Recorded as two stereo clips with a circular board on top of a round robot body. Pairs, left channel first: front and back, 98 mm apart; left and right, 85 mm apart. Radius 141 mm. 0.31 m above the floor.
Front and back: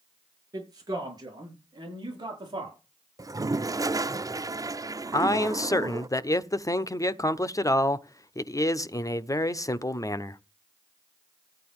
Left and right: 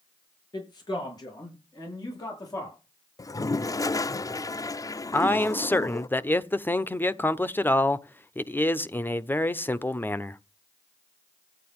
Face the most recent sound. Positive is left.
turn(degrees=35)